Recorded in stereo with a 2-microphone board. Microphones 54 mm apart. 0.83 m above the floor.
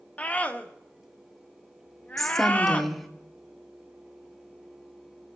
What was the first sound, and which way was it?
A scream, 30° left (ahead or behind).